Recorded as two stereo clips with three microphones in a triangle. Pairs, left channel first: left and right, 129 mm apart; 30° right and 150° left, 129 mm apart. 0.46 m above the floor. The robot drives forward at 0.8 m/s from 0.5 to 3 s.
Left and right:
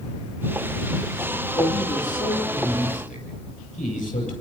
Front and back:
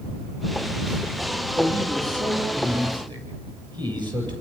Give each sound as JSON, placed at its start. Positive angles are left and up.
{"t": 1.6, "sound": "a man speaking", "azimuth_deg": 90, "distance_m": 9.0}